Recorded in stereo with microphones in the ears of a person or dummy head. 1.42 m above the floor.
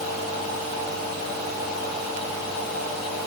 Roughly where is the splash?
I don't hear a splash.